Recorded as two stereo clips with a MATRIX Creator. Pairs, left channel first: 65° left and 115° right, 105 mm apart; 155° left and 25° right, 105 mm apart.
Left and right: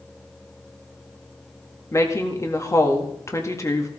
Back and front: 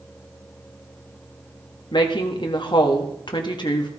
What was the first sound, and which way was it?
A woman speaking, 125° left.